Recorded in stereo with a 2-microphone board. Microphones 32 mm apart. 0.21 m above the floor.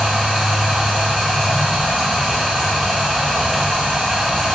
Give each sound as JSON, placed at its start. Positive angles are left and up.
{"t": 0.0, "sound": "running water", "side_deg": -10, "distance_m": 1.2}